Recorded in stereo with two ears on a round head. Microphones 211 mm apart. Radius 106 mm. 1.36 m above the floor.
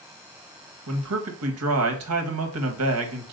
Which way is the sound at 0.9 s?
65° right (ahead or behind).